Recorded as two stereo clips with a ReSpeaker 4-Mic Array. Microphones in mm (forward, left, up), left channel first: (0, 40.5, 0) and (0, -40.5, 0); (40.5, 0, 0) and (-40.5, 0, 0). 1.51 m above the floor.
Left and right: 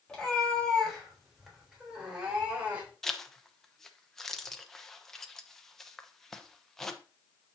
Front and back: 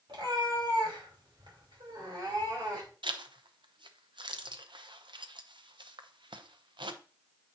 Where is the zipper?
175° left, 0.8 m.